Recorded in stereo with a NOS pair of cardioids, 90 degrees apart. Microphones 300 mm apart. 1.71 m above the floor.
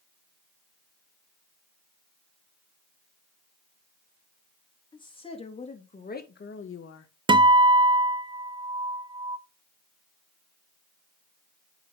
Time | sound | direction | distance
4.9 | a woman speaking | 15° left | 3.5 m
7.3 | a guitar | 15° right | 0.7 m